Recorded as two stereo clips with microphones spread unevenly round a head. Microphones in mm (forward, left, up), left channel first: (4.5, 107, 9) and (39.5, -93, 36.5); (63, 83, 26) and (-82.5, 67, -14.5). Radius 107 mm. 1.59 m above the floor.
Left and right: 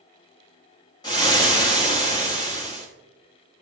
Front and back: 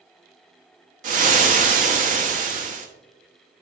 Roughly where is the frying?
Behind.